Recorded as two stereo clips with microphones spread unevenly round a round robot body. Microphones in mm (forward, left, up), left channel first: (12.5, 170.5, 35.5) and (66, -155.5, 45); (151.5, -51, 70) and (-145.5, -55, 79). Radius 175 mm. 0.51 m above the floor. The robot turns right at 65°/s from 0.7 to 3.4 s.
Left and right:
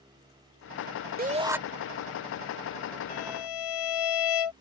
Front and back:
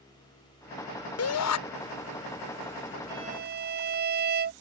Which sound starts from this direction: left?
A violin, at 3.1 s.